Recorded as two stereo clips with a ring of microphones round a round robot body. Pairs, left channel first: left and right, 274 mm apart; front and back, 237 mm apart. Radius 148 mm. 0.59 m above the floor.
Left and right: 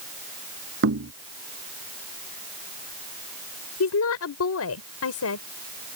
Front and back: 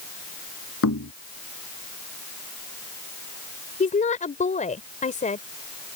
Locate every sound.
0.8 s knocking: 40° right
3.8 s a woman speaking: 60° left